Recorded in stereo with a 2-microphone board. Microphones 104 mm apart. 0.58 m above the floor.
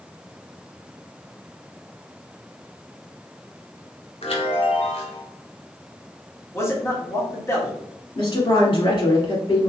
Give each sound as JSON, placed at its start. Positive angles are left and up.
{"t": 4.2, "sound": "a chime", "side_deg": 70, "distance_m": 1.2}
{"t": 6.5, "sound": "a man speaking", "side_deg": 25, "distance_m": 1.3}
{"t": 8.2, "sound": "a woman speaking", "side_deg": 50, "distance_m": 1.6}